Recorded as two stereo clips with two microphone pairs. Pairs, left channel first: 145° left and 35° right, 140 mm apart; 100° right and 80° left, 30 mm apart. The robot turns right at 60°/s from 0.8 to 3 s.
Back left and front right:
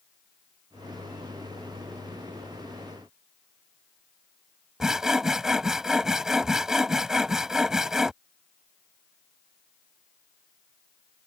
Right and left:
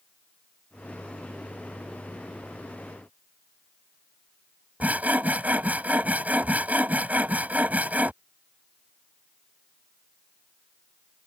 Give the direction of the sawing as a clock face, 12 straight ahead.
10 o'clock.